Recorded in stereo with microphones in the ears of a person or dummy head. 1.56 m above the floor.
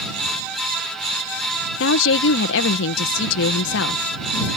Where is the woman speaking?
75° left (ahead or behind).